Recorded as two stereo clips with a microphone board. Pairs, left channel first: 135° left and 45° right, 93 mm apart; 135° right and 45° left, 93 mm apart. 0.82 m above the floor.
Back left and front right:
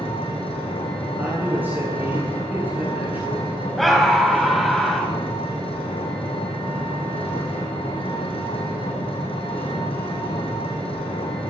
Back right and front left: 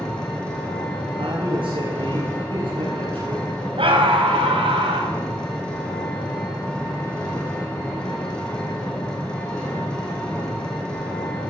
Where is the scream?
45° left, 5.5 m.